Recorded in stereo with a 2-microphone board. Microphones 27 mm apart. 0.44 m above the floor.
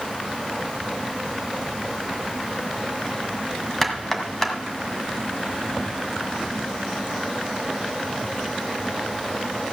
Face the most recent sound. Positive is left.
turn(degrees=15)  # may be behind; listen again after turning